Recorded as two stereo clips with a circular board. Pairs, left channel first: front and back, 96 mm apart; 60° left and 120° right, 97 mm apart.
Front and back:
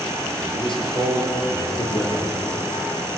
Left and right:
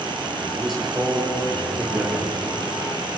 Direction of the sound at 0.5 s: 30° right.